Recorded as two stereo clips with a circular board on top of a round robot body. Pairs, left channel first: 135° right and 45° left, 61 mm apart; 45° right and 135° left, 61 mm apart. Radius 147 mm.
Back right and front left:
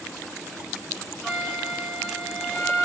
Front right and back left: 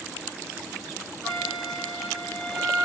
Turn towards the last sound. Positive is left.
turn(degrees=145)